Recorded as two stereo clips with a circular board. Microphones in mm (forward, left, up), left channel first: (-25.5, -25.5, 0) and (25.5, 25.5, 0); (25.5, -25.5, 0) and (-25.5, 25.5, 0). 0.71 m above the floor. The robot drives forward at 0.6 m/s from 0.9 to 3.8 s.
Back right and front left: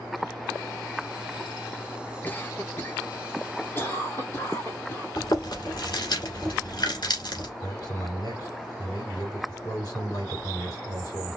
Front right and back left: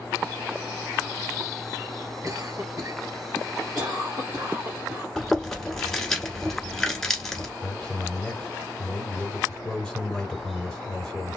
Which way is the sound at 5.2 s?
130° right.